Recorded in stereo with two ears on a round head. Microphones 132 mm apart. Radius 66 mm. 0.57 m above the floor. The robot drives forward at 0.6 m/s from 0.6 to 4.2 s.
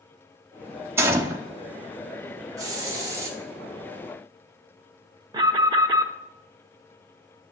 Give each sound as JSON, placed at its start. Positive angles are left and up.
{"t": 1.0, "sound": "a gunshot", "side_deg": -20, "distance_m": 0.8}
{"t": 2.6, "sound": "a hiss", "side_deg": -25, "distance_m": 1.1}
{"t": 5.3, "sound": "an alarm", "side_deg": -25, "distance_m": 0.7}